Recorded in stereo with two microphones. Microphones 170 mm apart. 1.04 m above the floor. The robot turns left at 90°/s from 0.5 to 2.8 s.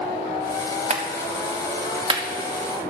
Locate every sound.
0.9 s a clap: 40° right (ahead or behind), 1.6 m; by 2.2 s 20° right (ahead or behind), 1.6 m